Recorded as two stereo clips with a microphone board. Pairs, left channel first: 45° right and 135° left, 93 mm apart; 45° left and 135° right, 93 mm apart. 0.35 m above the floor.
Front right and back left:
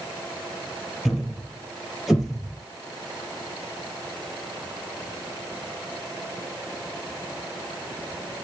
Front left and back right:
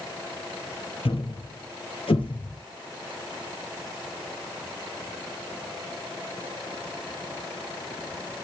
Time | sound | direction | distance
1.1 | a thud | 45° left | 2 m